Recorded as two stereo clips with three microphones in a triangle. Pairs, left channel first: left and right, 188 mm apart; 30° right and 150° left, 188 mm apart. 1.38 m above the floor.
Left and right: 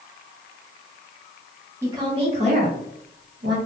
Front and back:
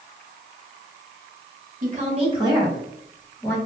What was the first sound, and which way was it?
A woman speaking, 165° right.